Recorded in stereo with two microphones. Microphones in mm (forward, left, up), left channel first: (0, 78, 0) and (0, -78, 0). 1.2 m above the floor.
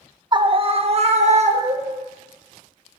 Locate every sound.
0.3 s a scream: 30° right (ahead or behind), 0.7 m; by 2.0 s 50° right (ahead or behind), 1.7 m